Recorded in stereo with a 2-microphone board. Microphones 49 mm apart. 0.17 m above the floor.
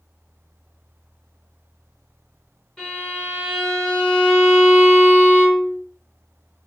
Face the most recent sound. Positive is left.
turn(degrees=10)  # may be behind; listen again after turning